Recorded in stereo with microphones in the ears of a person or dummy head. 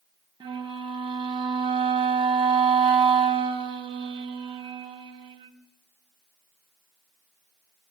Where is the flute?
25° right (ahead or behind), 2 m.